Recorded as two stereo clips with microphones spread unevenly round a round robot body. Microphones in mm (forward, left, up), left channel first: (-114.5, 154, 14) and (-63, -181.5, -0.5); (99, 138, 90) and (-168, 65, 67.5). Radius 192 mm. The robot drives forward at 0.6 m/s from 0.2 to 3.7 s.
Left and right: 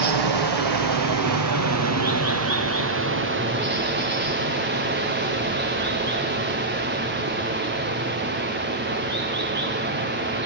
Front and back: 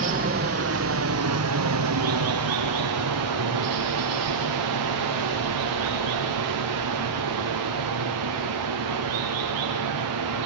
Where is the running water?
95° right, 1.8 m; by 10.5 s 140° right, 3 m.